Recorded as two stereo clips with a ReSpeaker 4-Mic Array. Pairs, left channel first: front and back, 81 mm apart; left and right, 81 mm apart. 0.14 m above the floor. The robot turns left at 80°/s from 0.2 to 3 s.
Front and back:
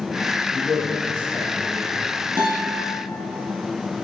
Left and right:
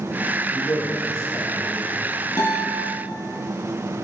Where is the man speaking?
120° left, 2.5 m; by 1.9 s 15° left, 2.5 m.